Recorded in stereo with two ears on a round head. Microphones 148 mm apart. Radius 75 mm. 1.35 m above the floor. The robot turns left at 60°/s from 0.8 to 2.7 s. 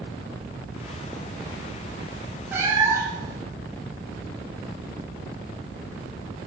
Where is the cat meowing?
10° right (ahead or behind), 1.1 m; by 3.4 s 15° right (ahead or behind), 1.1 m.